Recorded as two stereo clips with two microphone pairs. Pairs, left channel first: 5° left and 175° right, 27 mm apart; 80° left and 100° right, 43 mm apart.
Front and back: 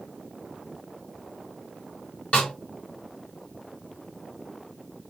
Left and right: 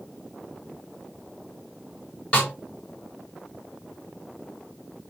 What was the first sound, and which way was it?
A snare drum, 25° left.